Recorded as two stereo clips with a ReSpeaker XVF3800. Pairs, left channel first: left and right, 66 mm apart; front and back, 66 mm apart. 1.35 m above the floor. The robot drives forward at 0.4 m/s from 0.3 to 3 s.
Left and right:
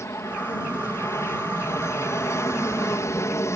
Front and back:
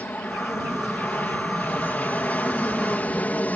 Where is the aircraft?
60° left.